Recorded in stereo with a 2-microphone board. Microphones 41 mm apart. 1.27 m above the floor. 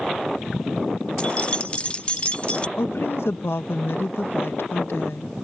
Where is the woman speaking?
80° left.